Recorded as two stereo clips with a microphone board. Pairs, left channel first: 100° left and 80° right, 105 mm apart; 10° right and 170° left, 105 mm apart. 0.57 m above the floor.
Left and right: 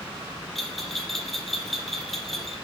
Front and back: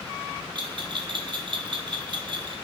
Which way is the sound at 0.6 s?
170° right.